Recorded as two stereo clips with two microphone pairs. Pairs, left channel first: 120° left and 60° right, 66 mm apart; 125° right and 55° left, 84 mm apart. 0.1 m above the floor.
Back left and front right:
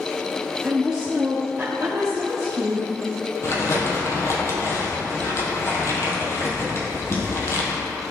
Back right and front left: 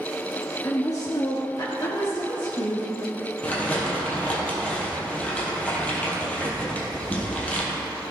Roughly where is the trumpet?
I don't hear a trumpet.